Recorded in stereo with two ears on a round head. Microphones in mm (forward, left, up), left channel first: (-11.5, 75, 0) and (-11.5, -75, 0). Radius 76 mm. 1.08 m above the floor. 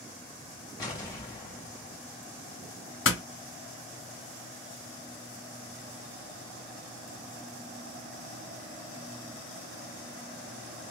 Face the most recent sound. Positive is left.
turn(degrees=80)